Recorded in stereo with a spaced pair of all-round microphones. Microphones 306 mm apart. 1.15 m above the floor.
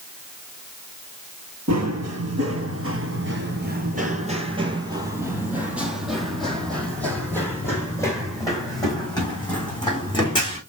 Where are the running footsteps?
55° right (ahead or behind), 1.8 m; by 10.6 s 15° left (ahead or behind), 5 m.